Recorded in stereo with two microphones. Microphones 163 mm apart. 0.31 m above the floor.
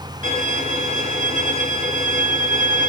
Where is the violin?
55° right (ahead or behind), 3 m.